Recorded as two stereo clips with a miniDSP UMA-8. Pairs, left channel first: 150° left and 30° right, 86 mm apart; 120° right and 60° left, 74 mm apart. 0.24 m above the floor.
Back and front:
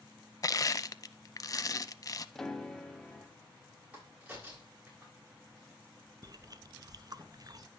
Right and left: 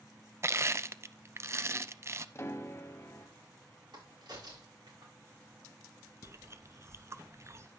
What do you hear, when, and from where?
0.4 s crushing: 110° left, 0.5 m
2.4 s a piano: 130° right, 1.1 m
3.9 s a crack: 40° left, 6 m
6.2 s chewing: 10° left, 0.6 m